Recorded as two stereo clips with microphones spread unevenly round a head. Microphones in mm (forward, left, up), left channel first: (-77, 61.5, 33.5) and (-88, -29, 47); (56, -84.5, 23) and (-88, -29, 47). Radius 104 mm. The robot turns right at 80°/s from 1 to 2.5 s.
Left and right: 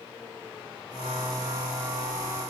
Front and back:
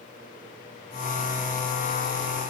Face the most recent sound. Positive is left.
No sound to turn to.